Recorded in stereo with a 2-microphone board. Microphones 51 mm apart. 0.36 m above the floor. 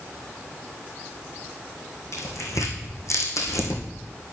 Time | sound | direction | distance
2.1 | tearing paper | 85° left | 3 m